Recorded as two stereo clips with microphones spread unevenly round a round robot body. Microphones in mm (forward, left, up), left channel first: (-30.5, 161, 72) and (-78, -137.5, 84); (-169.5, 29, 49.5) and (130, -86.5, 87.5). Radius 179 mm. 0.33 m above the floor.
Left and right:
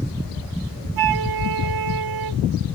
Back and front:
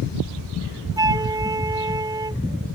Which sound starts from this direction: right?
A flute, at 1.0 s.